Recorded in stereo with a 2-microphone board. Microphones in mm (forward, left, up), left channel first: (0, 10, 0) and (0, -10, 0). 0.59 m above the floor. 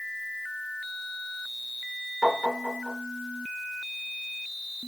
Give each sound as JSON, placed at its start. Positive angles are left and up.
{"t": 2.2, "sound": "tapping", "side_deg": 10, "distance_m": 1.7}